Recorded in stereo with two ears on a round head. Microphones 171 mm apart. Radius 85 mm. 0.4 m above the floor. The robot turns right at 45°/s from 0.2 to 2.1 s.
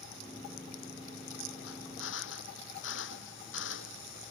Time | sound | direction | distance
1.7 | a drill | 85° left | ?